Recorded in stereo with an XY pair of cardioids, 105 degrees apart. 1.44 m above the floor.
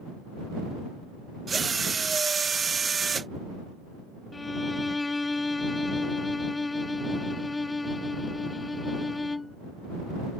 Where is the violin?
20° left.